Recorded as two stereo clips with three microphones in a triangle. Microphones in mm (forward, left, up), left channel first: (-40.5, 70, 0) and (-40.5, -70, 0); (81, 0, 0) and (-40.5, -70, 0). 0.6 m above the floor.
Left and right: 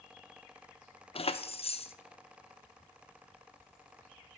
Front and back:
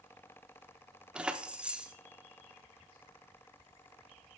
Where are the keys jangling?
130° left, 0.5 m.